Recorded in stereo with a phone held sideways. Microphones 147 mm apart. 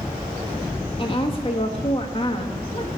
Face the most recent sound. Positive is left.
turn(degrees=35)  # may be behind; listen again after turning